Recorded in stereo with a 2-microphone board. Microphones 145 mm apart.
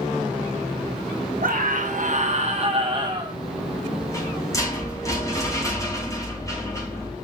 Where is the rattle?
20° left (ahead or behind), 5 m.